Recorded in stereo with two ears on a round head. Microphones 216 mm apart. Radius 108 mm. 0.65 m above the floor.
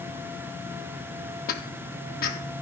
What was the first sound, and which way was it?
Footsteps, 40° left (ahead or behind).